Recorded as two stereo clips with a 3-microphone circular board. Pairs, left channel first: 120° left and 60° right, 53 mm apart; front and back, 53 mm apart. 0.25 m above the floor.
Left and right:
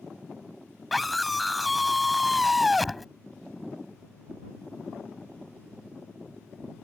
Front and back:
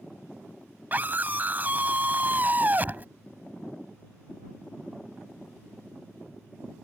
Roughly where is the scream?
Behind right.